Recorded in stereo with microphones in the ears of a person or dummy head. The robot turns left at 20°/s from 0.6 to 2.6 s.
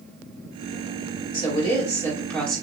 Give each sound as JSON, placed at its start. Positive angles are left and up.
{"t": 1.3, "sound": "a woman speaking", "side_deg": 25, "distance_m": 2.5}